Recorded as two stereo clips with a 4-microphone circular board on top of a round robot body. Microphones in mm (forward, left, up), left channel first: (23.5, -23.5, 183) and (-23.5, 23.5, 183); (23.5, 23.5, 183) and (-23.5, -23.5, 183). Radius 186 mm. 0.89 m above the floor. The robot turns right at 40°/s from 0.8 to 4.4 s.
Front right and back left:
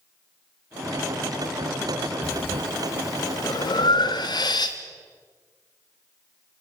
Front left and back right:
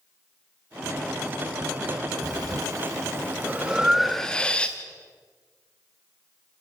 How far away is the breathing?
About 0.7 m.